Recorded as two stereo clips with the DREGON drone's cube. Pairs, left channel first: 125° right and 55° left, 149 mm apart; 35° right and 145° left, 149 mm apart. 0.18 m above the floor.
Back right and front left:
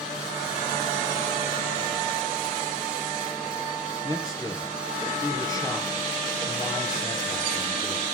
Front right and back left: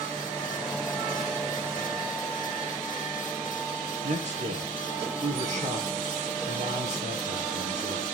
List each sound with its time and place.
4.0 s a man speaking: 175° left, 3 m